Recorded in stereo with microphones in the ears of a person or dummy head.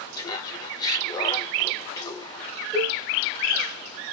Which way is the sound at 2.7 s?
5° right (ahead or behind).